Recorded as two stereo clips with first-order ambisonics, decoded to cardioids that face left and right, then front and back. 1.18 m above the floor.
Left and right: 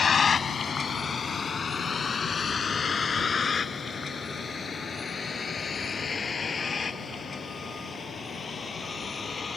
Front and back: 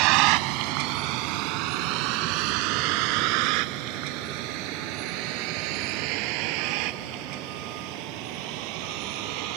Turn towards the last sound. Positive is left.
turn(degrees=165)